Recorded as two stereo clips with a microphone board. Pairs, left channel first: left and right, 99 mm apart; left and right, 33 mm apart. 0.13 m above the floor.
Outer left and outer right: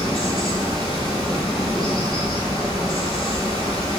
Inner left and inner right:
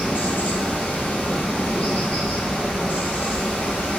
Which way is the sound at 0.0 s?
50° left (ahead or behind).